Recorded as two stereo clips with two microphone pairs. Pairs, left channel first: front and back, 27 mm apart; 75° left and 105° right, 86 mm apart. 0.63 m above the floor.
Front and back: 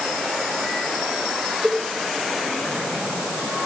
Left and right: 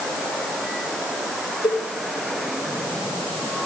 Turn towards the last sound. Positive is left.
turn(degrees=75)